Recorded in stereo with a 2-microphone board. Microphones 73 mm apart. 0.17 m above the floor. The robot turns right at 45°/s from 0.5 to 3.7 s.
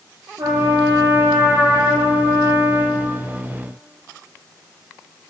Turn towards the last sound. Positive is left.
turn(degrees=60)